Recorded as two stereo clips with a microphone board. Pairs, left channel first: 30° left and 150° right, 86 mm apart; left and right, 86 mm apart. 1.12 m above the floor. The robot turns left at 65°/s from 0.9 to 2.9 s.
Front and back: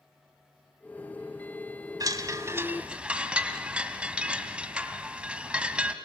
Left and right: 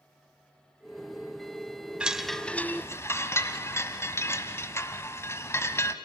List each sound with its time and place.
2.0 s a chime: 165° right, 1.3 m; by 5.9 s 140° left, 1.3 m